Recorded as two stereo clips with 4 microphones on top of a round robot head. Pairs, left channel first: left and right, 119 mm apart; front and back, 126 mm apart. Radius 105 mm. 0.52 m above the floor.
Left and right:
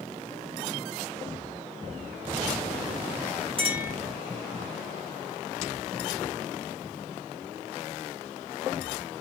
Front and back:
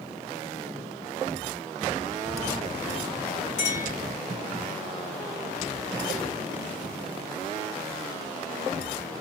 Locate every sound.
3.6 s a clink: 45° right, 3.5 m